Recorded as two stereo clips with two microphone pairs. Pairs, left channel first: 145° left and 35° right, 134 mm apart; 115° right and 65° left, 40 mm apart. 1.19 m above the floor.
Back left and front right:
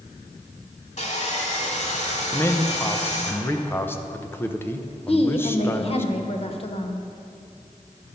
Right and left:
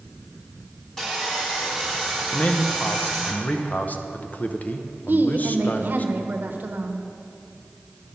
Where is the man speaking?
145° right, 0.6 m.